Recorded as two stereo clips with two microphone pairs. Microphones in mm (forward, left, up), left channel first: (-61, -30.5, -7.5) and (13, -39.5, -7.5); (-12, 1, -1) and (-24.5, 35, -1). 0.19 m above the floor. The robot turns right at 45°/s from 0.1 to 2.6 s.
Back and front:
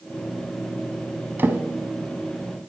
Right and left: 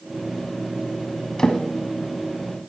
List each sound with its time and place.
1.4 s a drawer: 15° right, 0.7 m; by 1.6 s 10° right, 0.7 m